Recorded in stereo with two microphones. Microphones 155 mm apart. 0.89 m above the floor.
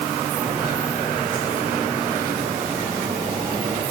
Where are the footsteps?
5° right (ahead or behind), 8.5 m; by 3.8 s 25° right (ahead or behind), 8.5 m.